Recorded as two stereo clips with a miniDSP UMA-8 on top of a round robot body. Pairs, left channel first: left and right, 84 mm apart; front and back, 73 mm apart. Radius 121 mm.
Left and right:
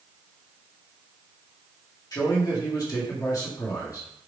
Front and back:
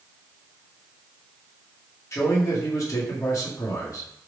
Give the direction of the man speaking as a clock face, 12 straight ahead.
10 o'clock.